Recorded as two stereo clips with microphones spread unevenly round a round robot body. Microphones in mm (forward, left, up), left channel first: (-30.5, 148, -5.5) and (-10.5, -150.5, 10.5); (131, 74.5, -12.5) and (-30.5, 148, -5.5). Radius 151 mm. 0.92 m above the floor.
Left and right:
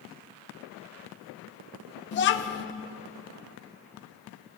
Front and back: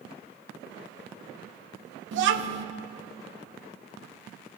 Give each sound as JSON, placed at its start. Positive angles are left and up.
{"t": 2.1, "sound": "a child speaking", "azimuth_deg": 150, "distance_m": 0.6}